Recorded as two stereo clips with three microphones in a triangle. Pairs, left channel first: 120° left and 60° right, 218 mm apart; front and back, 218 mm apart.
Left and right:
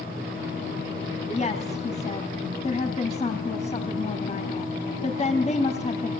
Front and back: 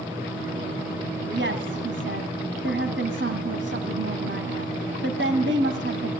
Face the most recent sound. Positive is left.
turn(degrees=175)